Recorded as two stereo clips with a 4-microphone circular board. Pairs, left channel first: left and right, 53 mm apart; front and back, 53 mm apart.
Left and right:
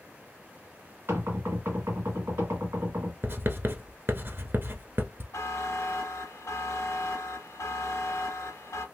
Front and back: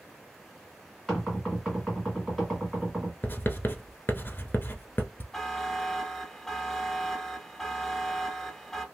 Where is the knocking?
90° right, 1.9 m.